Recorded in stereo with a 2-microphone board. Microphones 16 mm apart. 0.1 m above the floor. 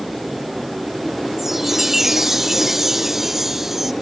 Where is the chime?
20° right (ahead or behind).